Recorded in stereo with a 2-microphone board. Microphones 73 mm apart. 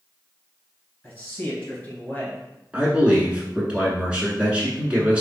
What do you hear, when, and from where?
1.0 s a man speaking: 25° left (ahead or behind), 1.7 m
2.7 s a man speaking: 15° right (ahead or behind), 1.1 m